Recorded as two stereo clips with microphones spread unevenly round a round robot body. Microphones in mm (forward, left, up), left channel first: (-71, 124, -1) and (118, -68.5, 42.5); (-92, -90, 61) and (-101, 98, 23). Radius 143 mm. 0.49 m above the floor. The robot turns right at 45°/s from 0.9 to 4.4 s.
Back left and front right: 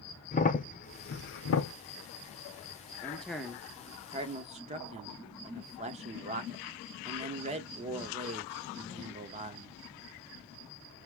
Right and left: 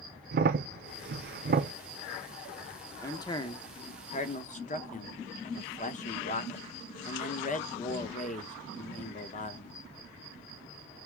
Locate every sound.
0.3 s a crack: 80° left, 0.7 m; by 1.7 s 120° left, 0.7 m
3.0 s a man speaking: 170° right, 1.0 m; by 9.8 s 105° right, 1.0 m